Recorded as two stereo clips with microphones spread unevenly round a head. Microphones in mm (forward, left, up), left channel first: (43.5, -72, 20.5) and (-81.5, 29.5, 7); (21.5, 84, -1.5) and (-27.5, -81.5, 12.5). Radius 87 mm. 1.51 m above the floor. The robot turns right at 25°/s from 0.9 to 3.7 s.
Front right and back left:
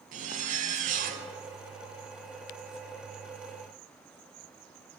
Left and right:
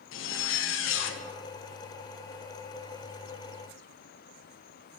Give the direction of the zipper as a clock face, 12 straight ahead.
9 o'clock.